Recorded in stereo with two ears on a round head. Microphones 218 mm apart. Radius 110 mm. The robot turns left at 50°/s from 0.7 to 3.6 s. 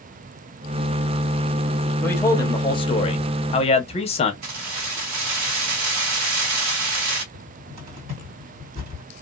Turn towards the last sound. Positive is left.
turn(degrees=-75)  # may be behind; listen again after turning